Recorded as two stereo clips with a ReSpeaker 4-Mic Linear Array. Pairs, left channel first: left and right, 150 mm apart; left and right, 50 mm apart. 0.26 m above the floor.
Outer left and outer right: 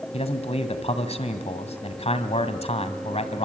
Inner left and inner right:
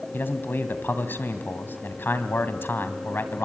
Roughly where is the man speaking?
Left.